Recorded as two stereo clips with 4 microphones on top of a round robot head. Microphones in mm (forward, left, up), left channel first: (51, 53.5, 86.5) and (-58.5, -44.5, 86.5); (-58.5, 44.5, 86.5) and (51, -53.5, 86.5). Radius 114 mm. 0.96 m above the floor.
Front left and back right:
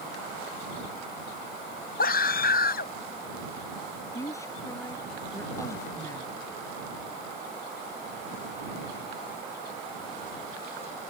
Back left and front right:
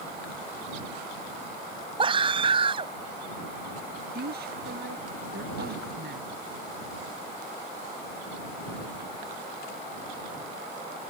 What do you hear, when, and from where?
2.0 s a scream: 15° left
4.2 s a woman speaking: 30° right